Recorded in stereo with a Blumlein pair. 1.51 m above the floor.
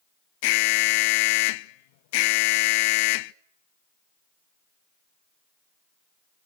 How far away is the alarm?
About 0.6 m.